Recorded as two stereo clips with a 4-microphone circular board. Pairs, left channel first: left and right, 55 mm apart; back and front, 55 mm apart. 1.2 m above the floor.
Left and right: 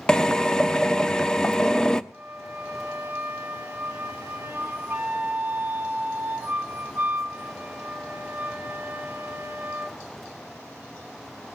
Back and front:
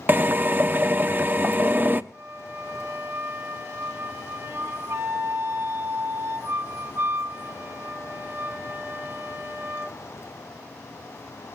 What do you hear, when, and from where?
0.1 s a drill: 20° left, 0.8 m
2.1 s a flute: 30° right, 2 m